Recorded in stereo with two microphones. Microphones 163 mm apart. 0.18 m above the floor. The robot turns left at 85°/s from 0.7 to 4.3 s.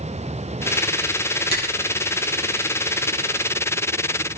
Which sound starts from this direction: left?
A finger snap, at 1.5 s.